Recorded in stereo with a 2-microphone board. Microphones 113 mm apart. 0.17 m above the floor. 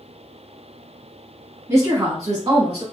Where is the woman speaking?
25° right (ahead or behind), 1.1 m; by 2.8 s 40° right (ahead or behind), 1.7 m.